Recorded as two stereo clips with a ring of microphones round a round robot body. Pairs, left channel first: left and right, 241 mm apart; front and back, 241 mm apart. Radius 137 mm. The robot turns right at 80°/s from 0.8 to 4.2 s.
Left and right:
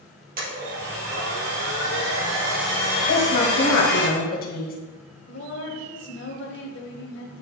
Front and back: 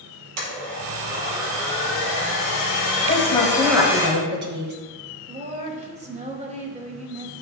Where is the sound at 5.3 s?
125° left, 1.9 m.